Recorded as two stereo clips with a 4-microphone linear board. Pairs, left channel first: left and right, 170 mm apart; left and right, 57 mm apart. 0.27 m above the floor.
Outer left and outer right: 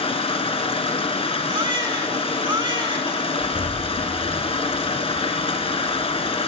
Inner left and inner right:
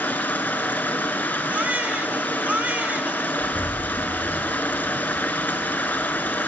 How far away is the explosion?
About 2 m.